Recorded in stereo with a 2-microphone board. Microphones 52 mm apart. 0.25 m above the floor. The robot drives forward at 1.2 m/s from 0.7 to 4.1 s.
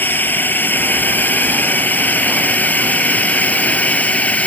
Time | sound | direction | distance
0.0 | a drone | 35° left (ahead or behind) | ?